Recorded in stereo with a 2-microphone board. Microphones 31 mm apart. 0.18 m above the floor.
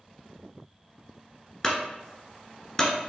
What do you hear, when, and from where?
1.6 s a clunk: 15° left (ahead or behind), 1.3 m